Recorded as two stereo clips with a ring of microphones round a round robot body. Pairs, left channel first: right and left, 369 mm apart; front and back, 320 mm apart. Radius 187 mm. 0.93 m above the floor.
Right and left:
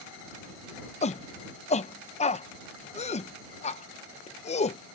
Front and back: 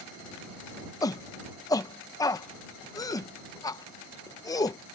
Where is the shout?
60° right.